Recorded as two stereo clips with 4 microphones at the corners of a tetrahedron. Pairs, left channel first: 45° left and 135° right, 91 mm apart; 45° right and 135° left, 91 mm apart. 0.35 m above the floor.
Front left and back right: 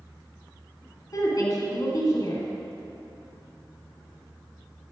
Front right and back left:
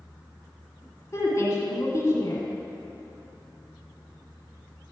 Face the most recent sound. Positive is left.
turn(degrees=10)